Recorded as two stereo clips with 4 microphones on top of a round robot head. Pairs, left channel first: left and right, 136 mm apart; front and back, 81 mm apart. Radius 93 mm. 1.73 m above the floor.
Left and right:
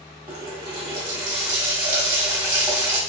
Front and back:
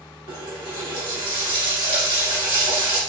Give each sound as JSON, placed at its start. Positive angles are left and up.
{"t": 0.3, "sound": "a running tap", "azimuth_deg": -150, "distance_m": 1.4}